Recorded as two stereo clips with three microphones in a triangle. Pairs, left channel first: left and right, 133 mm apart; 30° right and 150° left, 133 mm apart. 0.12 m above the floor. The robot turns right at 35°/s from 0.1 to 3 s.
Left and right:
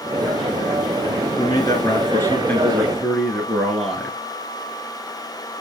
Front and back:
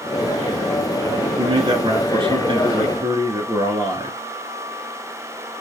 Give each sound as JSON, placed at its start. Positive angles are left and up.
{"t": 1.4, "sound": "a man speaking", "azimuth_deg": 120, "distance_m": 1.3}